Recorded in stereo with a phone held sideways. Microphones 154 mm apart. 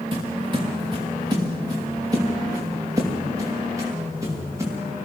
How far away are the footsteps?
About 4 m.